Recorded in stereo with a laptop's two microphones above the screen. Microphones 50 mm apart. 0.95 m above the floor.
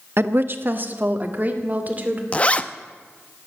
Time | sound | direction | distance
0.2 | a woman speaking | 55° right (ahead or behind) | 0.9 m
2.3 | a zipper | 25° left (ahead or behind) | 0.6 m